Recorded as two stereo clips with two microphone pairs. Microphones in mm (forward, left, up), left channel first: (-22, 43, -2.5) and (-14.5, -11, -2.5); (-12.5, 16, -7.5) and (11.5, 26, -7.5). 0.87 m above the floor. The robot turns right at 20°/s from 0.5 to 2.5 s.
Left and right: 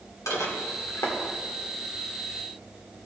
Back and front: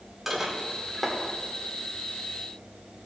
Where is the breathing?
I don't hear breathing.